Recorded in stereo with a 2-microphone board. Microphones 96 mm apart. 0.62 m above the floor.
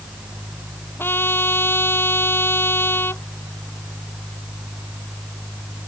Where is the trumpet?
25° left (ahead or behind).